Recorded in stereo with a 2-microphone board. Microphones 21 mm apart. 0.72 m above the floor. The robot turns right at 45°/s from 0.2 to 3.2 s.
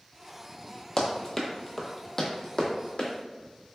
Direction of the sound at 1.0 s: 25° left (ahead or behind).